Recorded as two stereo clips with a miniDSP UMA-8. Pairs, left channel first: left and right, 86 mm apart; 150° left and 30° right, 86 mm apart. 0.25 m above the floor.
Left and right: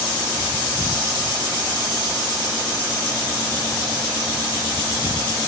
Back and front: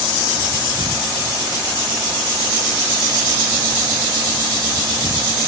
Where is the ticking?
No ticking in this recording.